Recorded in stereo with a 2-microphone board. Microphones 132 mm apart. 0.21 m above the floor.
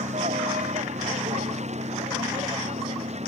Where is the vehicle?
60° right (ahead or behind); by 3.3 s 55° right (ahead or behind).